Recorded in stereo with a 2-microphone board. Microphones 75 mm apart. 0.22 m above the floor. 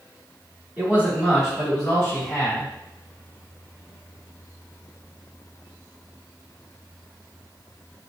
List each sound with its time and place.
0.8 s a man speaking: 25° right (ahead or behind), 1.2 m; by 2.7 s 30° left (ahead or behind), 1.2 m